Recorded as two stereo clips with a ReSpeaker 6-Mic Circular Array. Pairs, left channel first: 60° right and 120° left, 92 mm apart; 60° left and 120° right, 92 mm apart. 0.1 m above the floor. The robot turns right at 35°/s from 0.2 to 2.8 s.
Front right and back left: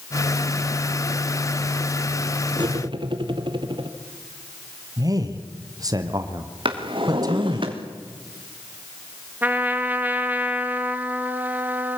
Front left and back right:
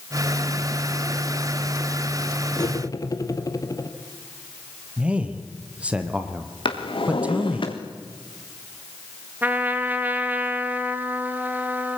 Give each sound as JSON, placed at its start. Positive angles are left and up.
{"t": 2.6, "sound": "cutlery clinking", "azimuth_deg": 100, "distance_m": 1.8}
{"t": 5.0, "sound": "a man speaking", "azimuth_deg": 165, "distance_m": 2.5}
{"t": 6.7, "sound": "a drawer", "azimuth_deg": 90, "distance_m": 3.0}
{"t": 9.4, "sound": "a trumpet", "azimuth_deg": 180, "distance_m": 1.6}